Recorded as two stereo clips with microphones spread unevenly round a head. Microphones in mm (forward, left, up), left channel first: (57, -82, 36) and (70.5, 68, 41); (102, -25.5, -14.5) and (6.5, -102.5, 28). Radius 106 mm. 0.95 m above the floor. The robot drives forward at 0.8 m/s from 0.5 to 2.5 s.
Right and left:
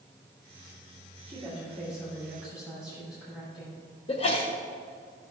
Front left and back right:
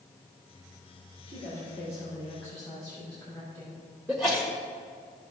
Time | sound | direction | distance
1.3 | a woman speaking | 170° left | 3 m
4.1 | a sneeze | 60° right | 1.4 m